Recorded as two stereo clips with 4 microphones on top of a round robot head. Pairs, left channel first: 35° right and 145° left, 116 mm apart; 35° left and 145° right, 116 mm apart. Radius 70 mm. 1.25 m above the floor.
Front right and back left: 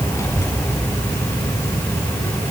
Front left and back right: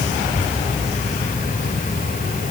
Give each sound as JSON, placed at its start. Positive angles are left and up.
{"t": 0.1, "sound": "a child speaking", "azimuth_deg": 35, "distance_m": 8.0}